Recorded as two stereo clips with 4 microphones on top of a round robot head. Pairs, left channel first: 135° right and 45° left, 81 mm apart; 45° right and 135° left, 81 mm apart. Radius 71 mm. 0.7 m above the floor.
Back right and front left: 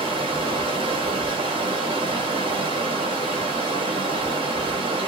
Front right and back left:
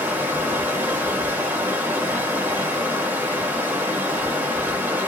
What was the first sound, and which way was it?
Running water, 65° left.